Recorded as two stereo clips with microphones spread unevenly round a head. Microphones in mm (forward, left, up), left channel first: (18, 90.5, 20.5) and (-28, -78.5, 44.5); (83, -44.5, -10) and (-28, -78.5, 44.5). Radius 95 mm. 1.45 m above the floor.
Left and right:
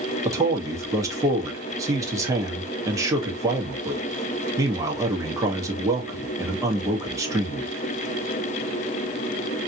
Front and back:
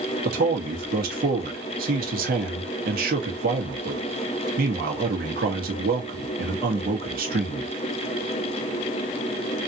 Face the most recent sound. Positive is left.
turn(degrees=180)